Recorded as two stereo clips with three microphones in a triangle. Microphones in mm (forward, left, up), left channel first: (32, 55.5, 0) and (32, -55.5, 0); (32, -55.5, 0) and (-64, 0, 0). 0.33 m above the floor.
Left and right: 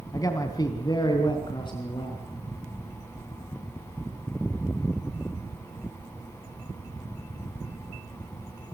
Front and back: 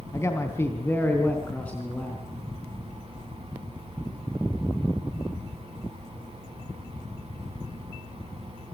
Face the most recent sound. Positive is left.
turn(degrees=50)